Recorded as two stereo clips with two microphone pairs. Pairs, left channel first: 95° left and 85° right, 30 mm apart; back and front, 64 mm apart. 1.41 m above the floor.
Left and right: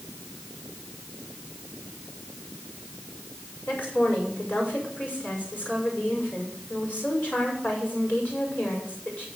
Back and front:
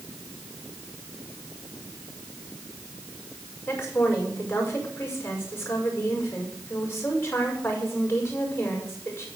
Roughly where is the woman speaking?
Behind left.